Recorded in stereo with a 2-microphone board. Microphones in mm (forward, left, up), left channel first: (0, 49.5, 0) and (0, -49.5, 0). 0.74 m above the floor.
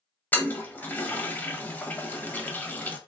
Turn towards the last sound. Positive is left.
turn(degrees=20)  # may be behind; listen again after turning